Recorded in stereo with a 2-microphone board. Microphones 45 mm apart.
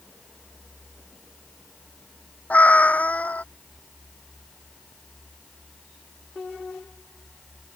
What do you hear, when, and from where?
2.5 s a cat meowing: 30° left (ahead or behind)